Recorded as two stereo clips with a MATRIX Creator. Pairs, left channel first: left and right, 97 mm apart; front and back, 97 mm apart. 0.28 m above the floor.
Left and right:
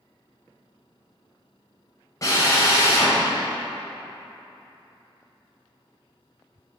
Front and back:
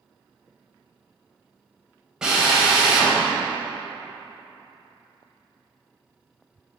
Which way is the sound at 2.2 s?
100° left.